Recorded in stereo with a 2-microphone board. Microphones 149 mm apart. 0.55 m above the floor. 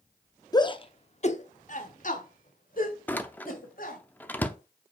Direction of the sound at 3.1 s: 10° left (ahead or behind).